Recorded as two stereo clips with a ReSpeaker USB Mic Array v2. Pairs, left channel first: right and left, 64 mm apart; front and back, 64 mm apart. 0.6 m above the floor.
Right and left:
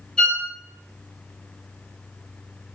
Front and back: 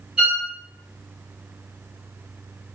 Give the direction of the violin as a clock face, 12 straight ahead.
5 o'clock.